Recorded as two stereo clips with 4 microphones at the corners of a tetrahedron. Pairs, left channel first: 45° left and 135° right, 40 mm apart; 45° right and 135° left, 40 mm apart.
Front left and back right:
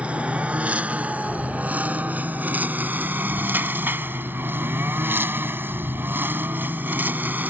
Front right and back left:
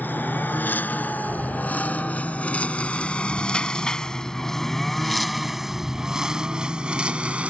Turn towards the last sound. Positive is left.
turn(degrees=-170)